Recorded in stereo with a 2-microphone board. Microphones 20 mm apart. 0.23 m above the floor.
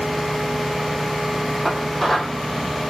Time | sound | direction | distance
1.6 | dishes clattering | 5° left (ahead or behind) | 6.5 m